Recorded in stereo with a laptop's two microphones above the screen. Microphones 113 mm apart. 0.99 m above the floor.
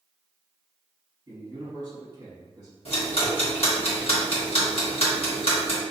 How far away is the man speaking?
About 1.3 m.